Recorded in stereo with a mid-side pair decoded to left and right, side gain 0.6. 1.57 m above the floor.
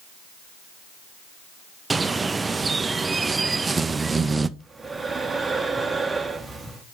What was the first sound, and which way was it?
A bird, 20° right.